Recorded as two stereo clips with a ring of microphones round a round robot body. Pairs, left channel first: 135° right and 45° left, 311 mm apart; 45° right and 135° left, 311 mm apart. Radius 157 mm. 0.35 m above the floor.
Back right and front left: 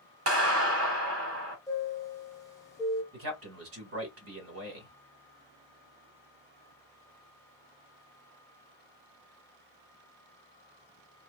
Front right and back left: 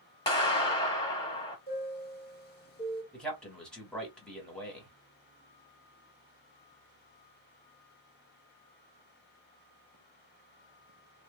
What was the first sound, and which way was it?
A clap, 25° left.